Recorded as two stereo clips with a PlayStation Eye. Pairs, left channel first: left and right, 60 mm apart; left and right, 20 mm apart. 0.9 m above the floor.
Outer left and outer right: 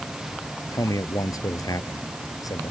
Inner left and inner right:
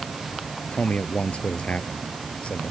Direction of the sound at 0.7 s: 80° left.